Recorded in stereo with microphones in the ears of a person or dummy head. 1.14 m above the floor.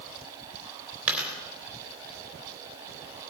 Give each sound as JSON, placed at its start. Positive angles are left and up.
{"t": 1.1, "sound": "a dropped coin", "side_deg": -5, "distance_m": 3.5}